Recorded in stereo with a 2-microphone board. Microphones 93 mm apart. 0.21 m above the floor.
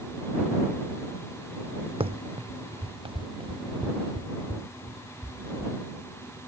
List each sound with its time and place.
2.0 s running footsteps: 80° right; by 5.7 s 65° right (ahead or behind)